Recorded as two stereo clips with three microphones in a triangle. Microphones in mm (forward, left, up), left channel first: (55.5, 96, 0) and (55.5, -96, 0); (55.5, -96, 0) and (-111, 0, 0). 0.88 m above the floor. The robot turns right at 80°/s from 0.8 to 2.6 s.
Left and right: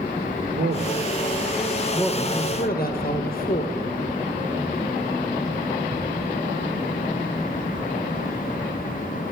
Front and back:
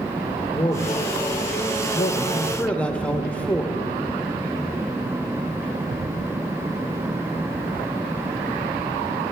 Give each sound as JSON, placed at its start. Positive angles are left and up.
{"t": 0.5, "sound": "a man speaking", "azimuth_deg": -90, "distance_m": 0.9}